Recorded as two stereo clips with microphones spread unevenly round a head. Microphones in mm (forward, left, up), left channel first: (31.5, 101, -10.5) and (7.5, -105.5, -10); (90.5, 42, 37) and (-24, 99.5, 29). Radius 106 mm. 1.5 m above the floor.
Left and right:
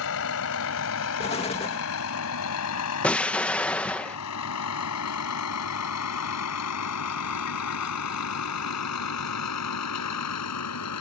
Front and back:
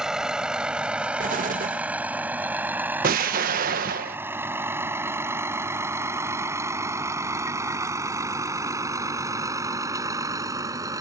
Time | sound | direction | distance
0.0 | a vehicle | 70° left | ?
1.2 | an explosion | 150° left | ?
3.0 | an explosion | 170° left | ?